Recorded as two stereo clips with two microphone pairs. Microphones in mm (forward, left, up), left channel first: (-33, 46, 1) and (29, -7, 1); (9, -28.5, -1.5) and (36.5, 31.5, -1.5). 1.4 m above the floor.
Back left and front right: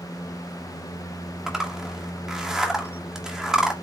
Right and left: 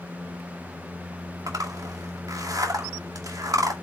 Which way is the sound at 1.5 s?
45° left.